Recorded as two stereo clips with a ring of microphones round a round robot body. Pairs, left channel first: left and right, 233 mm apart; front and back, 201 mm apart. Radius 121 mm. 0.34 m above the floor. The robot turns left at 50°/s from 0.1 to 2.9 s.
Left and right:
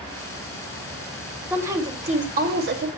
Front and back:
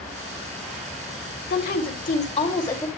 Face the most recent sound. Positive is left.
turn(degrees=-80)